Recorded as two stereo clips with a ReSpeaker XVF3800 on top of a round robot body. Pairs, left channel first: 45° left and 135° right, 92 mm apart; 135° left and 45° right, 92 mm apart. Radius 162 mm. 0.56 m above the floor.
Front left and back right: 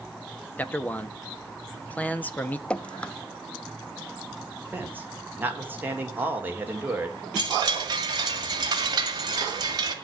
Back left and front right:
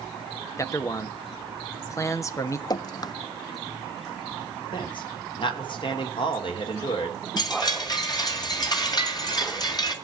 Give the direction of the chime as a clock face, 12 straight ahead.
6 o'clock.